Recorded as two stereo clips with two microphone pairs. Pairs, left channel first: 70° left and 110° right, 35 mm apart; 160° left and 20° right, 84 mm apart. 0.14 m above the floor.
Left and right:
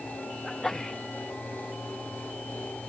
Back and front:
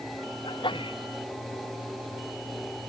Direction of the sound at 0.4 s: 145° left.